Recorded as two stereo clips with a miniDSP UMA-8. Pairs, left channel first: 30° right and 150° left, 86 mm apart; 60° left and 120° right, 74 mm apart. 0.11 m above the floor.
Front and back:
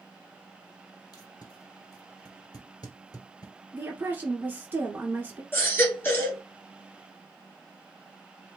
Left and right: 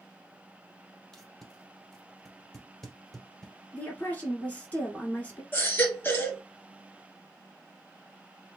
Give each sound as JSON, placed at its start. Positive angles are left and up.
{"t": 1.1, "sound": "tape being pulled", "azimuth_deg": -20, "distance_m": 1.7}
{"t": 3.7, "sound": "a woman speaking", "azimuth_deg": 105, "distance_m": 1.5}
{"t": 5.5, "sound": "a baby crying", "azimuth_deg": 20, "distance_m": 1.4}